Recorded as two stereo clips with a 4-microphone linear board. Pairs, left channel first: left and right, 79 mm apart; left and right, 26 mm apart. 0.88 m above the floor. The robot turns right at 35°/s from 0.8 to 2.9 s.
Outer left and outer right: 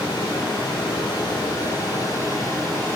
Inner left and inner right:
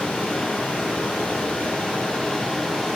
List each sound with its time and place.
0.0 s running water: 85° left, 6.5 m; by 3.0 s 155° left, 6.5 m